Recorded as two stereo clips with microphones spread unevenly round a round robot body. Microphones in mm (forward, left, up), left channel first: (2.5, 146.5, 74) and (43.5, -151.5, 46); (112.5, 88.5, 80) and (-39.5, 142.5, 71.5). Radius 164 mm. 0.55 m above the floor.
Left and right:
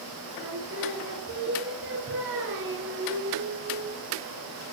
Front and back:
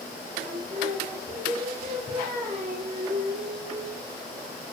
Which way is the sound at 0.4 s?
135° right.